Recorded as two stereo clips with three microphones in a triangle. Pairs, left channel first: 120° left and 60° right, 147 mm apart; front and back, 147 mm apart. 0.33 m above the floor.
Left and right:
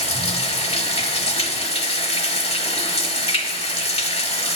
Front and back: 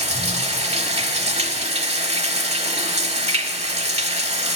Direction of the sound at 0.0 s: 150° left.